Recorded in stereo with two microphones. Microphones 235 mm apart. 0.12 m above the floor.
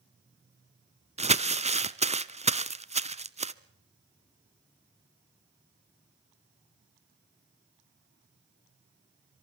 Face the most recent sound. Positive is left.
turn(degrees=-30)  # may be behind; listen again after turning